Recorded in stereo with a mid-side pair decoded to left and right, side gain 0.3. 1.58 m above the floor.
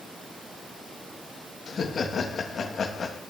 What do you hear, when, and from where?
1.7 s laughter: 70° left, 3 m